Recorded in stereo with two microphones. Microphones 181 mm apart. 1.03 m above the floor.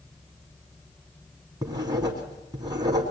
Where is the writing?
20° right (ahead or behind), 3 m.